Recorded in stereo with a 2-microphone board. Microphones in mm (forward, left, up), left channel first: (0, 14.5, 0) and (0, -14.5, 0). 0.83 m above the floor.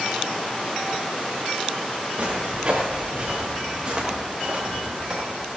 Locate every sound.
2.2 s footsteps: 55° right (ahead or behind), 7 m; by 5.3 s 30° right (ahead or behind), 6 m